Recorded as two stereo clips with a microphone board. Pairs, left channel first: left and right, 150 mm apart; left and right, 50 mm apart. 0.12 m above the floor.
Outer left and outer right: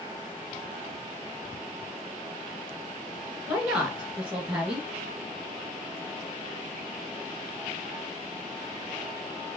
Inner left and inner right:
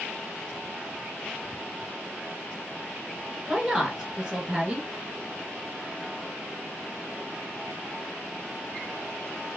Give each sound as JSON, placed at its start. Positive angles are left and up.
{"t": 3.5, "sound": "a woman speaking", "side_deg": -15, "distance_m": 1.6}